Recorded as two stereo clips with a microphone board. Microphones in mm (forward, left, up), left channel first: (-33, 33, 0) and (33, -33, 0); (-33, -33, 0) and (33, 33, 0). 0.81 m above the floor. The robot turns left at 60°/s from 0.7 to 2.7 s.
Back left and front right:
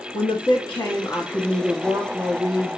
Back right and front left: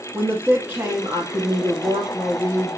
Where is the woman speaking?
110° left, 0.9 m; by 2.8 s 10° right, 0.9 m.